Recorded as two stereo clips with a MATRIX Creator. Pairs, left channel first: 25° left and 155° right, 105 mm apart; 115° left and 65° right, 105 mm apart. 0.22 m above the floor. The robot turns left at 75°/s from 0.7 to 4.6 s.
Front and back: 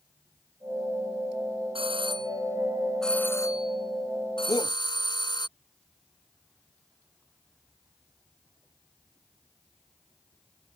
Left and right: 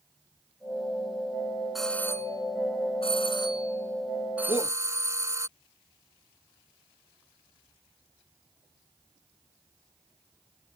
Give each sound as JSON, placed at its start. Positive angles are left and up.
{"t": 1.8, "sound": "a doorbell", "azimuth_deg": -155}
{"t": 4.5, "sound": "a shout", "azimuth_deg": 80}